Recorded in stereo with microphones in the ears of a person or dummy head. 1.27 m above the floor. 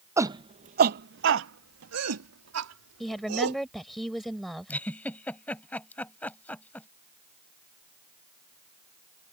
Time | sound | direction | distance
0.2 | a shout | 15° right (ahead or behind) | ?
3.0 | a woman speaking | centre (ahead or behind) | ?
4.7 | a giggle | 10° left (ahead or behind) | ?